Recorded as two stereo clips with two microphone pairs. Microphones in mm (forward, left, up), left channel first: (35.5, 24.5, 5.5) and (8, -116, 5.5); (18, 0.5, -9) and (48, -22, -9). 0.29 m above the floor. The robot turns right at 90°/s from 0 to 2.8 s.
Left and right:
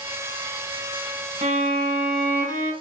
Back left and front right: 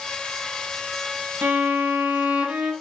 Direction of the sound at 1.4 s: 80° right.